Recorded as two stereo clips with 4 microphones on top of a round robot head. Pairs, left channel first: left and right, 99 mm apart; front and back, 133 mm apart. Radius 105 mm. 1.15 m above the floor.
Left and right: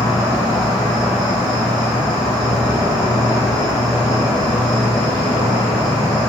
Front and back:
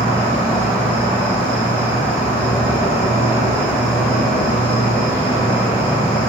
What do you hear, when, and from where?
0.0 s an insect: 100° left, 1.3 m